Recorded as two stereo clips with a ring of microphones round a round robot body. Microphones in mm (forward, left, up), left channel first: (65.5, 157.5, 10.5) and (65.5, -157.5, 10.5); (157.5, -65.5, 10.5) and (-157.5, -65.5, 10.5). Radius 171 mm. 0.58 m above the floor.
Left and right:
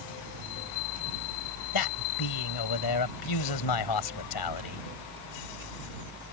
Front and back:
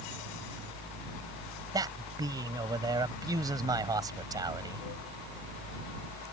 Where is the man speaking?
100° left.